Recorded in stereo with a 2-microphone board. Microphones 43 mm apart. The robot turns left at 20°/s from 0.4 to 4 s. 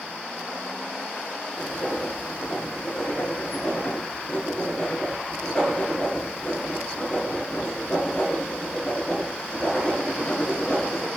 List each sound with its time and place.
1.6 s writing: 110° left, 0.9 m; by 11.1 s 60° left, 0.9 m